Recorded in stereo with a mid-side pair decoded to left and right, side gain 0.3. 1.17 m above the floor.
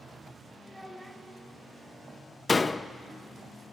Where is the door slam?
40° left, 0.8 m.